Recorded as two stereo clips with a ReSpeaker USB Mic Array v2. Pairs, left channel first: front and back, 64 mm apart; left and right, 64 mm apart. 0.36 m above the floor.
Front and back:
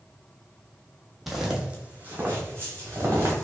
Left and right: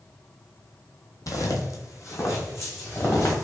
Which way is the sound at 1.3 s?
95° left.